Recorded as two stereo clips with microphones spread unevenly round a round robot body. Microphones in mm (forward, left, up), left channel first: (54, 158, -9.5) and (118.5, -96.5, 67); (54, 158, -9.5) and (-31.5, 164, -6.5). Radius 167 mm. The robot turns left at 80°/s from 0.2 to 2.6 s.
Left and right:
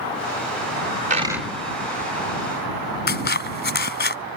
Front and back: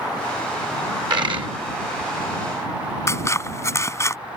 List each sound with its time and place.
1.1 s a dropped coin: 135° right; by 1.5 s 165° right
3.1 s scissors: 55° left